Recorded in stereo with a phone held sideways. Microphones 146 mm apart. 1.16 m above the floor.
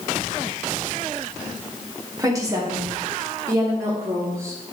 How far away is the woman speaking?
About 1.5 m.